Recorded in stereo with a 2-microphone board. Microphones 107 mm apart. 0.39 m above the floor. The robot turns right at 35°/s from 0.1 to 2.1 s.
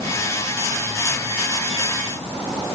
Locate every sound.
Only background noise.